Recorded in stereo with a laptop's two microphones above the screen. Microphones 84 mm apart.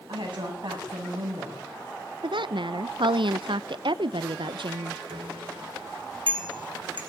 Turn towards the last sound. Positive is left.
turn(degrees=-85)